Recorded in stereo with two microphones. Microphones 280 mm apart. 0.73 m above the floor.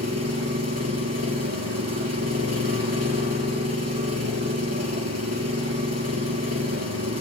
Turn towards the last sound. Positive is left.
turn(degrees=-70)  # may be behind; listen again after turning